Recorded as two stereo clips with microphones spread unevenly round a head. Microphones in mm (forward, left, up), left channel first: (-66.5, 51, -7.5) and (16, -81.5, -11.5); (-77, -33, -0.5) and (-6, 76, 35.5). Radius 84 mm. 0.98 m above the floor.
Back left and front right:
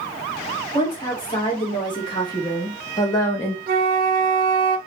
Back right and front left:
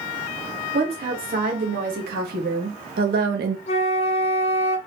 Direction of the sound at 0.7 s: 60° left.